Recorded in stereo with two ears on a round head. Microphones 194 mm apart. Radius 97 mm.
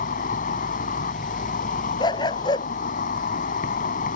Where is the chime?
I don't hear a chime.